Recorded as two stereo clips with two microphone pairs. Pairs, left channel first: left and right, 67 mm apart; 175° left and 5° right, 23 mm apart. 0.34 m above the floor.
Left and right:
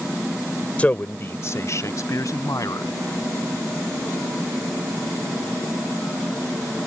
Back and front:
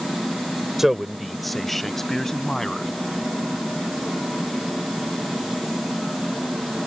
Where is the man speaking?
50° left; by 2.9 s 115° left.